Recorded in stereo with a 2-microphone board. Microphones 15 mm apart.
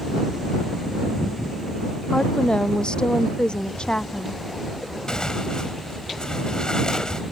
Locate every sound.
2.1 s a woman speaking: 65° left (ahead or behind); by 4.4 s 75° left (ahead or behind)
5.1 s tearing paper: 55° left (ahead or behind)